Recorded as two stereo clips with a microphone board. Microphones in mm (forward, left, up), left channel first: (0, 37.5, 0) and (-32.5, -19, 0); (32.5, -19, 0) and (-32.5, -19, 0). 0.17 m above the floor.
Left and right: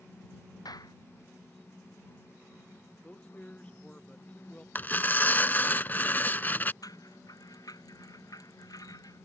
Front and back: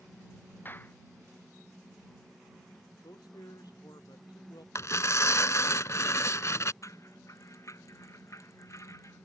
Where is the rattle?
40° left.